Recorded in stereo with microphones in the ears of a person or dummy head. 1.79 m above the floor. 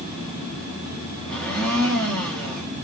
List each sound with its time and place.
1.3 s a blender: 10° left (ahead or behind), 2.5 m